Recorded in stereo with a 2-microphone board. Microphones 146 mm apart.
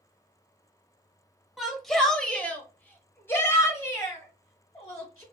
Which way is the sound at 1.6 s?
Centre (ahead or behind).